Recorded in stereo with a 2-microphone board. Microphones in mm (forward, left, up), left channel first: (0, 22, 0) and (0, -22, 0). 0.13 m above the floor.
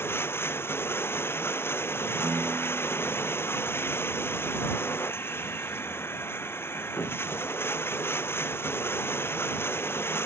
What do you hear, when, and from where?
0.0 s running water: 75° left (ahead or behind)
2.2 s a piano: 50° right (ahead or behind)